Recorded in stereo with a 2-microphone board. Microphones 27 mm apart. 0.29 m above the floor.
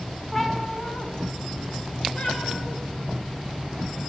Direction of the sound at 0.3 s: 10° left (ahead or behind).